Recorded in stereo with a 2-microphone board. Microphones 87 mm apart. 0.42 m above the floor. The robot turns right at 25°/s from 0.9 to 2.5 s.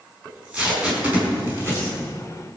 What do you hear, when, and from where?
0.2 s tape being pulled: 10° right (ahead or behind), 5 m; by 1.9 s 35° right (ahead or behind), 5 m